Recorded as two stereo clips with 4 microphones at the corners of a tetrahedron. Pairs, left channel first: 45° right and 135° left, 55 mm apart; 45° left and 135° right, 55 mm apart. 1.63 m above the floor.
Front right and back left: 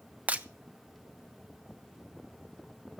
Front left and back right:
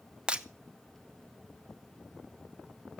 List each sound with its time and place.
0.3 s breaking glass: 170° left, 0.8 m